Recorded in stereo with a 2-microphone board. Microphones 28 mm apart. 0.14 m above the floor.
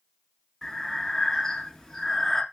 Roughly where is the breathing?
Centre.